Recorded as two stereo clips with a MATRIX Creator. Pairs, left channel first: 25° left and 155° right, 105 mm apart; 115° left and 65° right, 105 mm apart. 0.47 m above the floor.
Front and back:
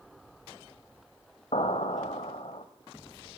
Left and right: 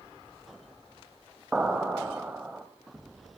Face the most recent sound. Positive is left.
turn(degrees=10)